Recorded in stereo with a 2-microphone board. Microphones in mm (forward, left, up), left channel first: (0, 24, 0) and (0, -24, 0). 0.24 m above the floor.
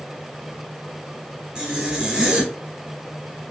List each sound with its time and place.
1.6 s a zipper: 15° right (ahead or behind), 1.1 m